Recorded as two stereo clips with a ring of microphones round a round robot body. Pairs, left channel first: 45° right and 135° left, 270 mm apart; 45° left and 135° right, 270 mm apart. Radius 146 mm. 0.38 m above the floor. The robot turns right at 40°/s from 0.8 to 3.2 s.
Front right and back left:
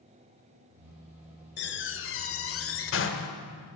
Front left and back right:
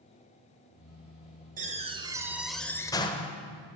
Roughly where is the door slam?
Right.